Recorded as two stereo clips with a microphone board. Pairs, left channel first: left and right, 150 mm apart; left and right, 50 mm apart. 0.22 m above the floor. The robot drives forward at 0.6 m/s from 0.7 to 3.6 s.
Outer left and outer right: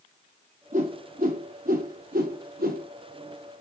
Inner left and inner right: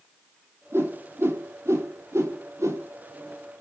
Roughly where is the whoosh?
Right.